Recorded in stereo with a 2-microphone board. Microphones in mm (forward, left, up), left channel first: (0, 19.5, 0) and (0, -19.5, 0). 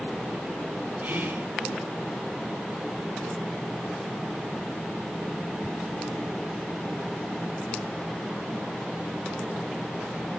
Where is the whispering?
45° right (ahead or behind), 2.5 m.